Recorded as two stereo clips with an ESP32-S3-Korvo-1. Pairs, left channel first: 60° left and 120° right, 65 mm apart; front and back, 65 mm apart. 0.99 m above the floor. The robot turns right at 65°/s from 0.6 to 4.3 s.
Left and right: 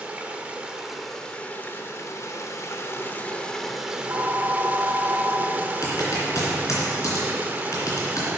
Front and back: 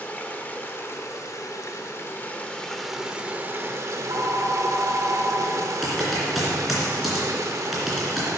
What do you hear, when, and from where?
0.0 s running water: 55° right, 0.8 m; by 8.4 s 175° right, 0.8 m
3.9 s a phone ringing: 170° right, 1.1 m; by 5.7 s 145° right, 1.1 m
5.8 s typing on a keyboard: 90° left, 2.5 m